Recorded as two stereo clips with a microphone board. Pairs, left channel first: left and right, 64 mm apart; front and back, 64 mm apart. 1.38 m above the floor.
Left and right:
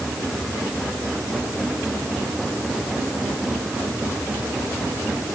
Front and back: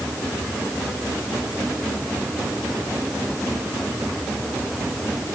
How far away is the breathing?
I don't hear breathing.